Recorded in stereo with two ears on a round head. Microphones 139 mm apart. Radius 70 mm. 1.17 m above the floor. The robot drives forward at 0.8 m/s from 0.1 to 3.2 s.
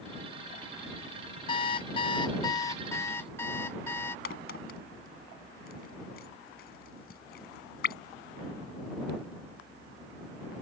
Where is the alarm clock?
30° left (ahead or behind); by 4.2 s 15° left (ahead or behind).